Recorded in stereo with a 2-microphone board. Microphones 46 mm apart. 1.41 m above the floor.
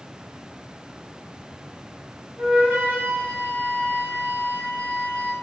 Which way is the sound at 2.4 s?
45° right (ahead or behind).